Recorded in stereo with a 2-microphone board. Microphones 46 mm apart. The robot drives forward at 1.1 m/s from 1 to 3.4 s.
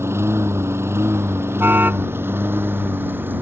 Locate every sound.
0.0 s a lawn mower: 75° right (ahead or behind); by 3.4 s 50° right (ahead or behind)
1.6 s a car horn: 50° right (ahead or behind); by 2.1 s 40° right (ahead or behind)